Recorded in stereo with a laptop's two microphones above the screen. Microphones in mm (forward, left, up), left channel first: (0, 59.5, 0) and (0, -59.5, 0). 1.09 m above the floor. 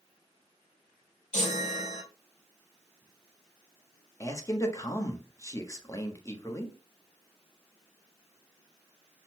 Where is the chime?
75° left (ahead or behind), 1.7 m.